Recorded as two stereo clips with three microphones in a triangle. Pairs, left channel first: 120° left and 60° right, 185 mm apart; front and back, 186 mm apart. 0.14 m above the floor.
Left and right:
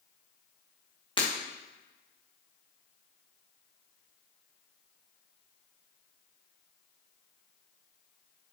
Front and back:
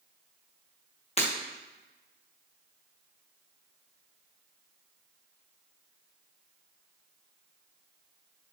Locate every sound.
1.2 s breaking glass: 55° left, 3.5 m